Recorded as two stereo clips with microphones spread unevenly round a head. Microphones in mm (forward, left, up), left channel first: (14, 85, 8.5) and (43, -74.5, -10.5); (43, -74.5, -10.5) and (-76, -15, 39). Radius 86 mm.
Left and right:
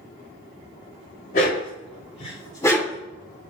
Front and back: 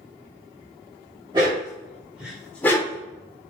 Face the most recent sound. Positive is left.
turn(degrees=35)